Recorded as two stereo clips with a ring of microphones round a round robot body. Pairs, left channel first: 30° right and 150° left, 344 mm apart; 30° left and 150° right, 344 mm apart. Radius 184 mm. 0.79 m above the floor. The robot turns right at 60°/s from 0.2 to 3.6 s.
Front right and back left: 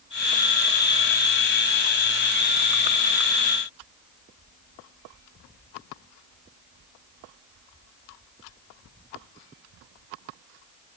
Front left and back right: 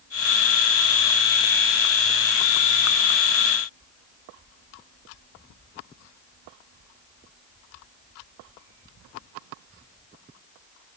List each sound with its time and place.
Only background noise.